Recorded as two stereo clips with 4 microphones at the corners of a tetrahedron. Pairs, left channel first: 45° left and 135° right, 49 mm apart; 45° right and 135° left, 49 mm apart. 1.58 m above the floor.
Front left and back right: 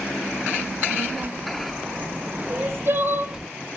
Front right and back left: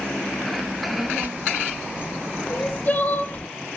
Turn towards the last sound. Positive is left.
turn(degrees=-110)